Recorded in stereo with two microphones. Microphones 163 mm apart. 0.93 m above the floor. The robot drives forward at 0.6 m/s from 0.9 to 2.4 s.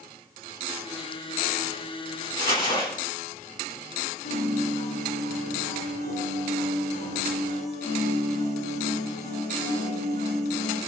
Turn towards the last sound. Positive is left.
turn(degrees=60)  # may be behind; listen again after turning